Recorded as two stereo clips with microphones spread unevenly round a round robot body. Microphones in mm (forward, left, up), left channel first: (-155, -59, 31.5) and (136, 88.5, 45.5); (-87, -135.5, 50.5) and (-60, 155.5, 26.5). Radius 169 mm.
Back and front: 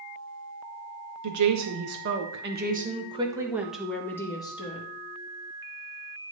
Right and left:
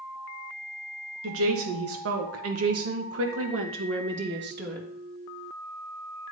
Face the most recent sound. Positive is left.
turn(degrees=135)